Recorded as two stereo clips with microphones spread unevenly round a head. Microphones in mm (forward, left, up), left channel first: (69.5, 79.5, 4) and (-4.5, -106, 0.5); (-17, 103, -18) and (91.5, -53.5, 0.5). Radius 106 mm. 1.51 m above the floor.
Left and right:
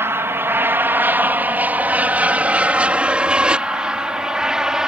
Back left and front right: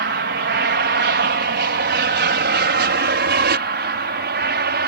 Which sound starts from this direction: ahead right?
An aircraft, at 0.0 s.